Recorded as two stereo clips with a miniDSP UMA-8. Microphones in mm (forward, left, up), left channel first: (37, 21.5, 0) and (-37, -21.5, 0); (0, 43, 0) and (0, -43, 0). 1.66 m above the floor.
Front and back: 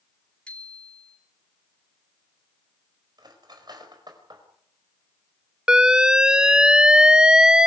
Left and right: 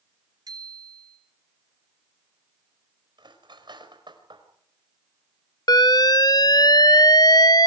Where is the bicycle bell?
50° right, 3 m.